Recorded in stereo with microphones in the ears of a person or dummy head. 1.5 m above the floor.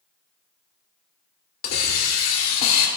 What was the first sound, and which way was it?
A hiss, 55° left (ahead or behind).